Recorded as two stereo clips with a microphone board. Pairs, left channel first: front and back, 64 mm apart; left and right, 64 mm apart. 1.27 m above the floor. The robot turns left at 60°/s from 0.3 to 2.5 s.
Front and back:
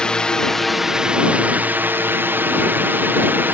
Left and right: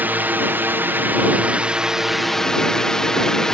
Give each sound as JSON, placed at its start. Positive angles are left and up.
{"t": 0.0, "sound": "a drone", "azimuth_deg": -65}